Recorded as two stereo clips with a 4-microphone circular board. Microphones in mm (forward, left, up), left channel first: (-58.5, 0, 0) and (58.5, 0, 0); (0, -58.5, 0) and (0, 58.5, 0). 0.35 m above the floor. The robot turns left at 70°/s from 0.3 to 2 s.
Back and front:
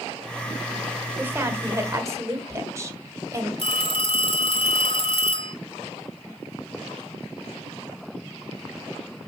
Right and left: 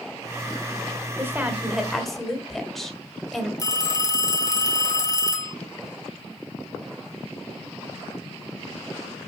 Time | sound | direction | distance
1.2 | a woman speaking | 50° left | 1.4 m
3.6 | a phone ringing | 145° right | 1.8 m